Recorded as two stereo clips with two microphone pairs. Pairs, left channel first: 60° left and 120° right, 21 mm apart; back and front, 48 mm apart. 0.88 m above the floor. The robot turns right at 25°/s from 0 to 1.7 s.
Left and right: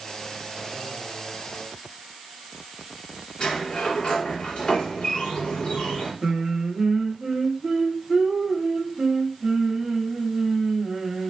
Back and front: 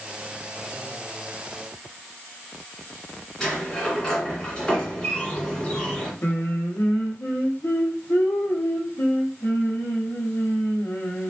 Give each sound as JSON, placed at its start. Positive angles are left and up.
{"t": 3.4, "sound": "a sliding door", "azimuth_deg": 100, "distance_m": 2.0}
{"t": 6.2, "sound": "singing", "azimuth_deg": -175, "distance_m": 1.0}